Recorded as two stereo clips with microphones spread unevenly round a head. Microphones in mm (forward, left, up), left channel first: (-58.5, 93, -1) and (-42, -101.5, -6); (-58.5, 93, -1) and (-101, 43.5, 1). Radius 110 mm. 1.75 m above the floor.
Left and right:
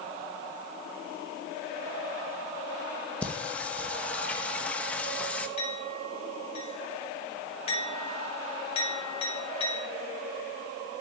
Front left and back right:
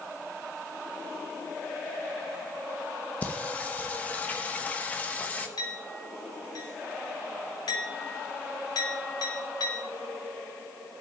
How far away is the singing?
About 1.0 m.